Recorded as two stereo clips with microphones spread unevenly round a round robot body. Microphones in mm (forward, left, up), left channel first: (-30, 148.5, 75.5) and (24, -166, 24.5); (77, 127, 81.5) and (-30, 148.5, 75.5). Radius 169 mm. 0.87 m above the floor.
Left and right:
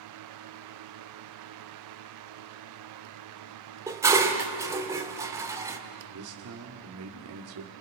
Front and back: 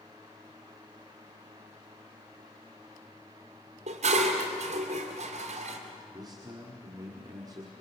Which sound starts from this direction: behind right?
A man speaking, at 6.1 s.